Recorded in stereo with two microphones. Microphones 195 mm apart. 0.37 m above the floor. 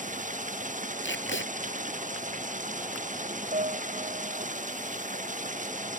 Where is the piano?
35° right (ahead or behind).